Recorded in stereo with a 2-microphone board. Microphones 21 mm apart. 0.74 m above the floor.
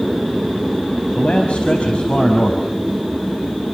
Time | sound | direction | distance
1.1 | a man speaking | 70° left (ahead or behind) | 5.5 m